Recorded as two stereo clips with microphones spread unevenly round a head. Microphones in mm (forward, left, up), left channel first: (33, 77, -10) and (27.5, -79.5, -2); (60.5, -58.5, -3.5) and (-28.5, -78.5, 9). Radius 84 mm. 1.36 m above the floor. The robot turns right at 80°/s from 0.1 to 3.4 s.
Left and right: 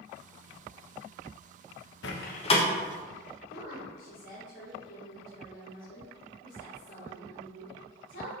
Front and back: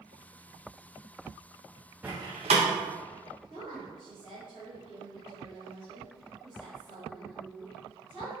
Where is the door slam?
110° left, 1.1 m; by 2.7 s 160° left, 1.1 m.